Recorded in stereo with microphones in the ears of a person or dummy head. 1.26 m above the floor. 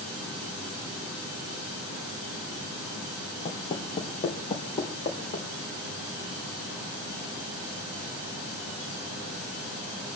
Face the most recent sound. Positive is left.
turn(degrees=30)  # may be behind; listen again after turning